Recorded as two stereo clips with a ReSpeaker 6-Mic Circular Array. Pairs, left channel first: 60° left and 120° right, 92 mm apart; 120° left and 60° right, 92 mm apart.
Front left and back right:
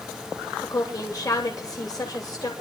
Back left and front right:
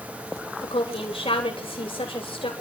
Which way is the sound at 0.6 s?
110° left.